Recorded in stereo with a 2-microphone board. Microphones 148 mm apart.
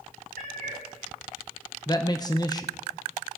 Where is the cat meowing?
70° right (ahead or behind), 4.5 m.